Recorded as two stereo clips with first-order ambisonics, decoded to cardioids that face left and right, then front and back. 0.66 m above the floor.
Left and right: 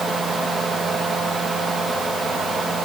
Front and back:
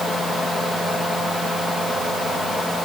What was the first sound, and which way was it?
Only background noise.